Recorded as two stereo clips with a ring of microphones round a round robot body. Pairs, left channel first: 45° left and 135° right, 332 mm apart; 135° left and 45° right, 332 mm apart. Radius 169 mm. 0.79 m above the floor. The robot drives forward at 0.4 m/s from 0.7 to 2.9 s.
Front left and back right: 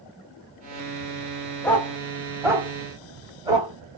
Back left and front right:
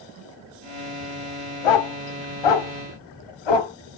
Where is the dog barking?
130° left, 0.9 m; by 3.7 s 145° left, 1.3 m.